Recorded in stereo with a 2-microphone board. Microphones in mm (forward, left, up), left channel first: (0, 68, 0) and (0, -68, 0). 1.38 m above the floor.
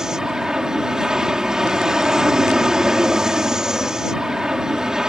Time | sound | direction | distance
0.0 | an aircraft | 5° right (ahead or behind) | ?